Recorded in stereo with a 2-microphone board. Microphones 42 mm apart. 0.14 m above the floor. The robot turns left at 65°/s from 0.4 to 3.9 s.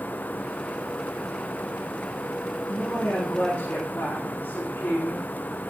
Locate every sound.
2.7 s a woman speaking: 150° left, 6 m; by 5.2 s 70° left, 6 m